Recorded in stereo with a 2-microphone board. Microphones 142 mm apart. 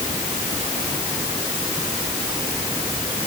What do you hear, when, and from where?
Only background noise.